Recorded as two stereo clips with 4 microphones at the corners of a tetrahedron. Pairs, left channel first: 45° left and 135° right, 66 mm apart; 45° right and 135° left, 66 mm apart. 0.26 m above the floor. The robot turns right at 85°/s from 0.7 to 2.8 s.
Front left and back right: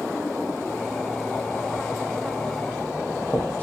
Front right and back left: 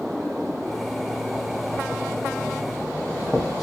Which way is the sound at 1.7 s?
35° right.